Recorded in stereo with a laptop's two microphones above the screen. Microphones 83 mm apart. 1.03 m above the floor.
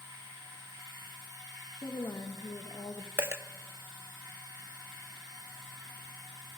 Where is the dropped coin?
30° right (ahead or behind), 0.5 m.